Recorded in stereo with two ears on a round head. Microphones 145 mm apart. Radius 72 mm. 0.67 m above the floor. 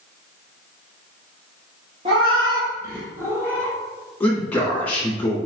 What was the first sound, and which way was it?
A cat meowing, 35° right (ahead or behind).